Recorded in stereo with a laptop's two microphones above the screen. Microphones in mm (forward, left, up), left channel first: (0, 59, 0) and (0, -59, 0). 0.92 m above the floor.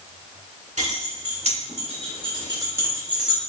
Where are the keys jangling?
85° right, 1.7 m; by 3.4 s 5° right (ahead or behind), 1.2 m.